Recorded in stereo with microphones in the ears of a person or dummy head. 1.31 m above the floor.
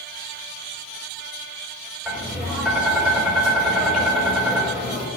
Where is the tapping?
Centre (ahead or behind), 4.5 m.